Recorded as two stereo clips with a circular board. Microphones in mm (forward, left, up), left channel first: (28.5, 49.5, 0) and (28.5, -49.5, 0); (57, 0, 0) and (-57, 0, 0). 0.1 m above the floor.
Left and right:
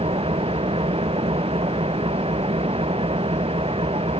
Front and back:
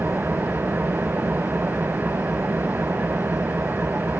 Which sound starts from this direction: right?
An engine running, at 0.0 s.